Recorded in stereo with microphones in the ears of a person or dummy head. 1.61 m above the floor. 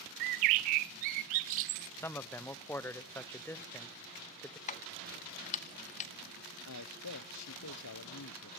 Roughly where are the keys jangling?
Left.